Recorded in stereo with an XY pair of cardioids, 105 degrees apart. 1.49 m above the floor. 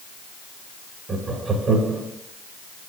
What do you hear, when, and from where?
1.1 s laughter: 45° right, 2 m